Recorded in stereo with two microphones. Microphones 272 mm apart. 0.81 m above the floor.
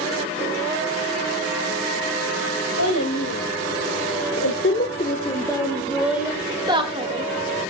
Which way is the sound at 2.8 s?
90° left.